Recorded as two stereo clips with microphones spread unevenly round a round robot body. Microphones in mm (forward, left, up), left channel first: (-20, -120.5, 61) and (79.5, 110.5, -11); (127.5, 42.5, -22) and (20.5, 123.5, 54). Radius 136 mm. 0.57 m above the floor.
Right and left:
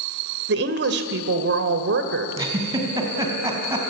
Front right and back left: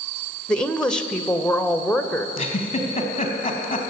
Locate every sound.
0.5 s a woman speaking: 35° left, 2 m
2.4 s a giggle: 10° right, 4.5 m